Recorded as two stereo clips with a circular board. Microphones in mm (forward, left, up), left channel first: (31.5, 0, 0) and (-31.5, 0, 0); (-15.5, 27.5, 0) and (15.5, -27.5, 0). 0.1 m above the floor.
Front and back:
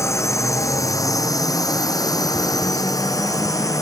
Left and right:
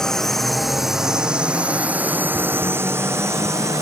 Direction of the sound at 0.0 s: 40° left.